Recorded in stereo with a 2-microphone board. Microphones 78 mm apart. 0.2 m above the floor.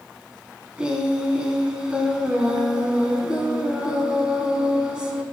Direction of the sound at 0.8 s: 10° right (ahead or behind).